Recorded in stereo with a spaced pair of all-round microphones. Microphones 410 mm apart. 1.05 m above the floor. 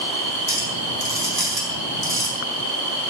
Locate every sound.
0.5 s a clink: 60° right (ahead or behind), 5 m